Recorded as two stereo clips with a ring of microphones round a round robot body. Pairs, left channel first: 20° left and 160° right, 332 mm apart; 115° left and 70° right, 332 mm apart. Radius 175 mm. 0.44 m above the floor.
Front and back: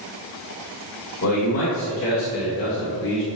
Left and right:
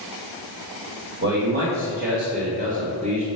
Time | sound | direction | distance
1.2 | a man speaking | 20° right | 2.5 m